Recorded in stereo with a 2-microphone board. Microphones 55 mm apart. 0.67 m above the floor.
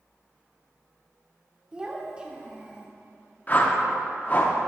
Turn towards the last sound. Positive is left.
turn(degrees=35)  # may be behind; listen again after turning